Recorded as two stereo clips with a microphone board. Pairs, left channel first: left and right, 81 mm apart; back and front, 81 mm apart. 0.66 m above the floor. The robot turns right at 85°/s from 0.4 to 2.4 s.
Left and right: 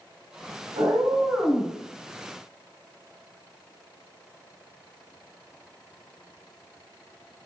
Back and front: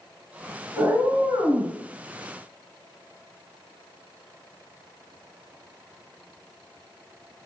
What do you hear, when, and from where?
0.8 s a cat meowing: 70° right, 1.2 m; by 1.8 s 15° left, 1.2 m